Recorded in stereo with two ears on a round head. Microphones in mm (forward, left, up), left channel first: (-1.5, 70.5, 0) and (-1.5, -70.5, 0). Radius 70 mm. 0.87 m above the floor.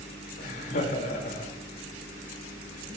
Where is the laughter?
60° left (ahead or behind), 3.5 m.